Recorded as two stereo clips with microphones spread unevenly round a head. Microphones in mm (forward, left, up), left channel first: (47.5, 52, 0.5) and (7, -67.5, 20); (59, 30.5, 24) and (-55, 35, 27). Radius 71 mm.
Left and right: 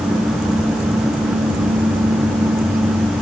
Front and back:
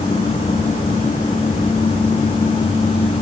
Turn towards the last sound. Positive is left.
No sound to turn to.